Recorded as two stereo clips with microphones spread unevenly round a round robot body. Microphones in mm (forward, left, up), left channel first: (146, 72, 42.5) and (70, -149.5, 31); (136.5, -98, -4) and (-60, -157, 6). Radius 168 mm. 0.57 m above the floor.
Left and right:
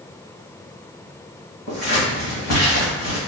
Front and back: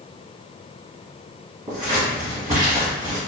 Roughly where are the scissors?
Behind left.